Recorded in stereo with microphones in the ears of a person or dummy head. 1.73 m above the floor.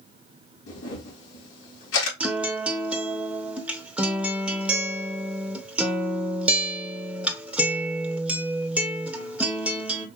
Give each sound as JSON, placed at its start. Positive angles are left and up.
{"t": 0.7, "sound": "a camera shutter", "side_deg": 85, "distance_m": 3.5}
{"t": 2.2, "sound": "a guitar", "side_deg": -10, "distance_m": 0.9}